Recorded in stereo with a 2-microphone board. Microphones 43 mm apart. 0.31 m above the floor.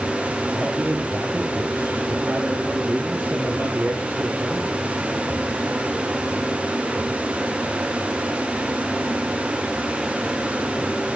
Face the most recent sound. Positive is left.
turn(degrees=-25)  # may be behind; listen again after turning